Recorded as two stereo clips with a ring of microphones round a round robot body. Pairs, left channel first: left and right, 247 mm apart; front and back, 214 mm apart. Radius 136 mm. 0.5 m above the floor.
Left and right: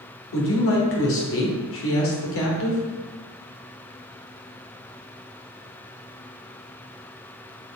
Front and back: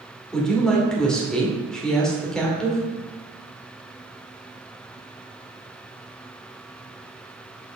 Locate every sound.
0.3 s a woman speaking: 85° left, 2 m